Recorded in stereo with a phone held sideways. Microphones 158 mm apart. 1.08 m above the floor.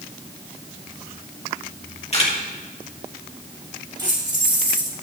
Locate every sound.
2.1 s a camera shutter: 40° left (ahead or behind), 1.8 m
4.0 s keys jangling: 25° right (ahead or behind), 3 m